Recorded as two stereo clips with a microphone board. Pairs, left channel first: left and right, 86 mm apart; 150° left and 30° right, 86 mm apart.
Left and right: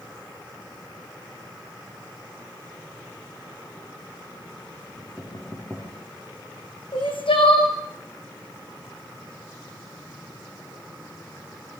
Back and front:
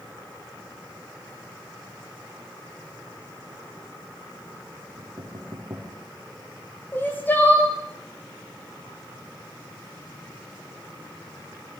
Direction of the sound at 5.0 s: 15° left.